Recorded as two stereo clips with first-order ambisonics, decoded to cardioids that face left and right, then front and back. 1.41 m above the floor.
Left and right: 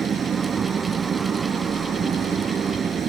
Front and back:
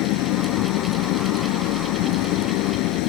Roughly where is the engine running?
Ahead right.